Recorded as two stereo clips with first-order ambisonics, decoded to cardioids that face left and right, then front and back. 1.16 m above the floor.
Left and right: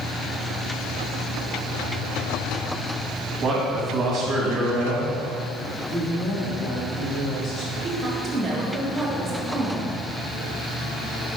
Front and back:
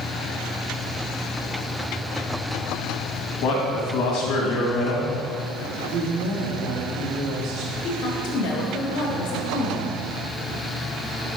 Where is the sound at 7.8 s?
15° right, 1.9 m.